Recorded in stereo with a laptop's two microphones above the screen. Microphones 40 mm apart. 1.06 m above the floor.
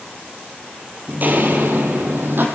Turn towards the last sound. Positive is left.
turn(degrees=-60)  # may be behind; listen again after turning